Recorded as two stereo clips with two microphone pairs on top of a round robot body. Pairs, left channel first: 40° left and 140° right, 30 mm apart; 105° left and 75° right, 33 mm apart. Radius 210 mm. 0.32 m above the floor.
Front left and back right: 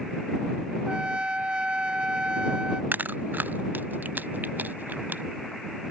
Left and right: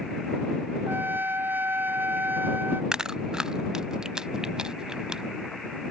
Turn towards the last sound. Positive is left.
turn(degrees=-145)